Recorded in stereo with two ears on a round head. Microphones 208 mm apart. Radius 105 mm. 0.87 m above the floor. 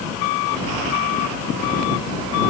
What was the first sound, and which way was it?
Only background noise.